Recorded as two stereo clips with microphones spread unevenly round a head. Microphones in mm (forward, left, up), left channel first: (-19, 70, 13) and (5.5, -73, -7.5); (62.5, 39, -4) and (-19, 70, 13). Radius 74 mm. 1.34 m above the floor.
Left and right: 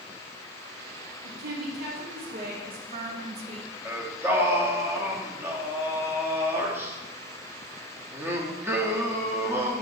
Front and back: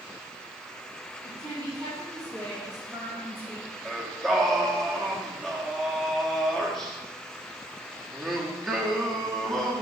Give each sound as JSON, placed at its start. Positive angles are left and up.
{"t": 1.2, "sound": "a woman speaking", "azimuth_deg": -105, "distance_m": 2.5}
{"t": 3.9, "sound": "singing", "azimuth_deg": -145, "distance_m": 0.8}